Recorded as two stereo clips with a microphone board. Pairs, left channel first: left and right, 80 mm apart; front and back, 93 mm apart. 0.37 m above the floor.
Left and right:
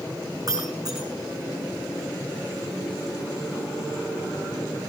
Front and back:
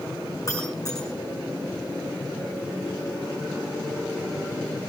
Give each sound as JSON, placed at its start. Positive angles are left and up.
{"t": 0.5, "sound": "breaking glass", "azimuth_deg": -50, "distance_m": 7.0}